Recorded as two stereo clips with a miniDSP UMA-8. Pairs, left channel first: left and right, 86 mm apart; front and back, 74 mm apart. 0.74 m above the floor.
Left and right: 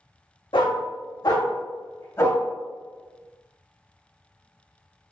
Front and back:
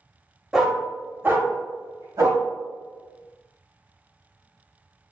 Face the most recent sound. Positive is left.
turn(degrees=150)